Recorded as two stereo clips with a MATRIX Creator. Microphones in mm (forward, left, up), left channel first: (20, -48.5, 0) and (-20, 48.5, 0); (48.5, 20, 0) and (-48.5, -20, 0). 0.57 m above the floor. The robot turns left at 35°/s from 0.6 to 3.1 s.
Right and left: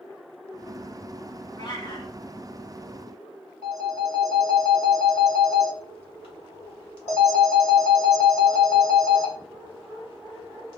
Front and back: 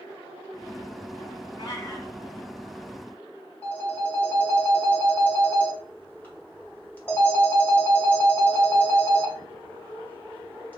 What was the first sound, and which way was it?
A cat meowing, 20° right.